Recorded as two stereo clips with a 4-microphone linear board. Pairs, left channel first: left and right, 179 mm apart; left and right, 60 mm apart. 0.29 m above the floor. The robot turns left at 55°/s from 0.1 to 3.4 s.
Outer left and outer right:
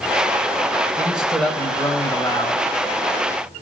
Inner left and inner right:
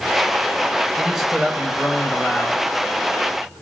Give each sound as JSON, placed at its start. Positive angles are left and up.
{"t": 1.0, "sound": "a man speaking", "azimuth_deg": -160, "distance_m": 1.2}